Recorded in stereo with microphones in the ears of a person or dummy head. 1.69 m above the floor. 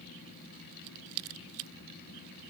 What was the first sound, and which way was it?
Only background noise.